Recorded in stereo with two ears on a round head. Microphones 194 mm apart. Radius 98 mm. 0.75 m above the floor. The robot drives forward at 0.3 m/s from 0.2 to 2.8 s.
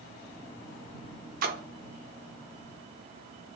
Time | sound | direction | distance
1.4 | a splash | 45° right (ahead or behind) | 0.7 m